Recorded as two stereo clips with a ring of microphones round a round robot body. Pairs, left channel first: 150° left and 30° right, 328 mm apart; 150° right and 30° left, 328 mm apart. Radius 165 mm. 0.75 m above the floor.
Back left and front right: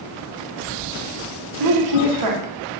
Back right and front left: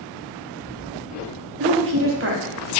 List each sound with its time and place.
1.6 s a woman speaking: 20° right, 1.0 m